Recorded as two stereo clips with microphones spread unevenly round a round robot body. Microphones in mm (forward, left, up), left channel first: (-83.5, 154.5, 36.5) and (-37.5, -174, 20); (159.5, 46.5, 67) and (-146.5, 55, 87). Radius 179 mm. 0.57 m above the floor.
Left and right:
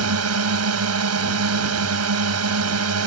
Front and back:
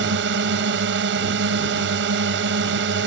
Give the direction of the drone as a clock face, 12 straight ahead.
4 o'clock.